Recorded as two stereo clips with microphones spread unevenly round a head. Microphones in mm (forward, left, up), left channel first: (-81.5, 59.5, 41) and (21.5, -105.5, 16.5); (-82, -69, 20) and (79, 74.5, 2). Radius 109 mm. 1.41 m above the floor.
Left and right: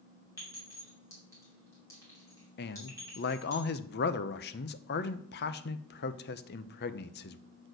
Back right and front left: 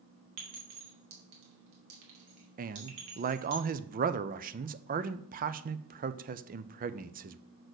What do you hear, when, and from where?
0.4 s a clink: 45° left, 2.5 m
2.6 s a man speaking: 85° left, 0.6 m